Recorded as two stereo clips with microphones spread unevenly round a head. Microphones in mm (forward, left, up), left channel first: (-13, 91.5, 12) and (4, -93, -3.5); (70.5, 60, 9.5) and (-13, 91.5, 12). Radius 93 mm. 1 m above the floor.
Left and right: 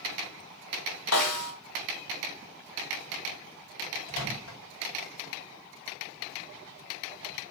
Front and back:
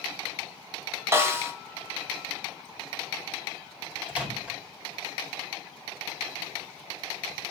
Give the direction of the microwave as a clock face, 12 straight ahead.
9 o'clock.